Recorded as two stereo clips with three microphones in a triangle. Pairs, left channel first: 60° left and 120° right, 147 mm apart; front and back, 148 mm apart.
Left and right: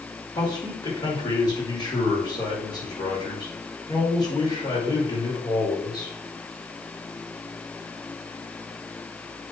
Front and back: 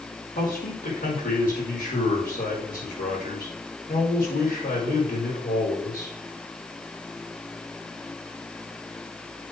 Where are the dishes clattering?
No dishes clattering in this recording.